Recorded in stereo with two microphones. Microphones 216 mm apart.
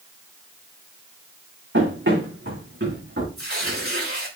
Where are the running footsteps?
65° right (ahead or behind), 6 m; by 3.3 s 60° right (ahead or behind), 5 m.